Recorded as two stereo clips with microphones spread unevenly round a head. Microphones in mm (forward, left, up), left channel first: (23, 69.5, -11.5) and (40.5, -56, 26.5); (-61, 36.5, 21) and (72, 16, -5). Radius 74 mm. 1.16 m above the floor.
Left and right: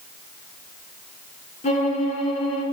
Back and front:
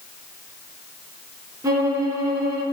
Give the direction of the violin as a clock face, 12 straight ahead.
10 o'clock.